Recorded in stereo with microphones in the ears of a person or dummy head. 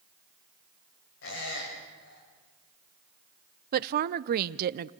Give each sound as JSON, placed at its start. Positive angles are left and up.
{"t": 1.2, "sound": "a squeak", "side_deg": 75, "distance_m": 6.5}
{"t": 3.7, "sound": "a woman speaking", "side_deg": -55, "distance_m": 0.6}